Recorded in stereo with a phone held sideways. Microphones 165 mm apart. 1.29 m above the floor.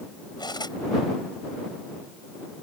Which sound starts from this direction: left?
Cutlery clinking, at 0.4 s.